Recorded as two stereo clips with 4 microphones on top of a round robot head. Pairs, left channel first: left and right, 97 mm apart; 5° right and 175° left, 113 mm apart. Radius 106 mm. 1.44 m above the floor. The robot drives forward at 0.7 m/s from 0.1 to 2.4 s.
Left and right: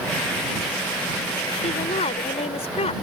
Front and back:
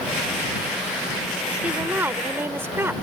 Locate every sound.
1.6 s a woman speaking: 100° left; by 2.9 s 105° left